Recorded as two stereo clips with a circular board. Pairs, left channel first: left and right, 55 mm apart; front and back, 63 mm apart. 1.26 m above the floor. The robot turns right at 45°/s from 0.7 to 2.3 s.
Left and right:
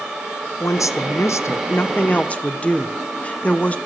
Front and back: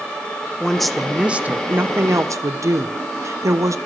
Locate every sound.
0.6 s a woman speaking: 80° left, 0.6 m; by 3.8 s 155° left, 0.6 m